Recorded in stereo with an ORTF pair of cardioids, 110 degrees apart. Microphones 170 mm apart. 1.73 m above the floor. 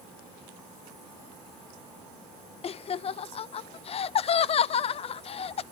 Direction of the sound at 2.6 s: 35° left.